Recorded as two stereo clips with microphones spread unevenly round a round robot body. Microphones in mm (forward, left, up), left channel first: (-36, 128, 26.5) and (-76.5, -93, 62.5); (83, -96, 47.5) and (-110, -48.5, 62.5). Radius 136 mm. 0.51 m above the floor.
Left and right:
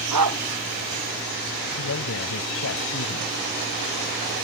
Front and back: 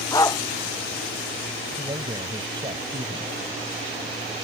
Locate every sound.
0.1 s a dog barking: 85° right
1.8 s a man speaking: 95° left